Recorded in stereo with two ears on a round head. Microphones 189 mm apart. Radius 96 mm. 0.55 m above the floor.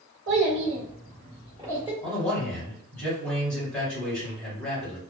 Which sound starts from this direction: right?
A child speaking, at 0.3 s.